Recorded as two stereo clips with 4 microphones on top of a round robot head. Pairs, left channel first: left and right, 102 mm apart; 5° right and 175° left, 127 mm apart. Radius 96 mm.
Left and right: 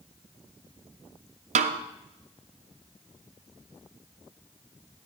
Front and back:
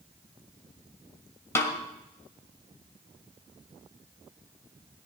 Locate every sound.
1.6 s a snare drum: 80° right, 0.6 m